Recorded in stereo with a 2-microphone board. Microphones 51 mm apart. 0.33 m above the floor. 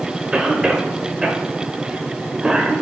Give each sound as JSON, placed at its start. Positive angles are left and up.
{"t": 0.3, "sound": "a cough", "side_deg": -15, "distance_m": 0.8}